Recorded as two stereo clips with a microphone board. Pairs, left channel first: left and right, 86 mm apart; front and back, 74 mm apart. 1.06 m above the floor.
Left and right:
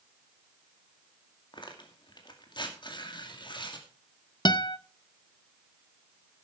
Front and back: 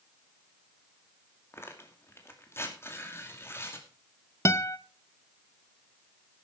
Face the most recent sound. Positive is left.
turn(degrees=50)